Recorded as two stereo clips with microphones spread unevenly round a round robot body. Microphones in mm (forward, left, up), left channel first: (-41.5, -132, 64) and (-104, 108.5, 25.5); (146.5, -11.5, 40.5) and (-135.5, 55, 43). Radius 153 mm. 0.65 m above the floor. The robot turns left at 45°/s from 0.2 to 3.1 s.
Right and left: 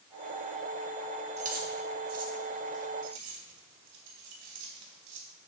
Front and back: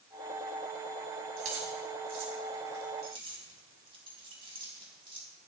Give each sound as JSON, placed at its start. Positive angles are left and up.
{"t": 1.4, "sound": "keys jangling", "azimuth_deg": 170, "distance_m": 3.5}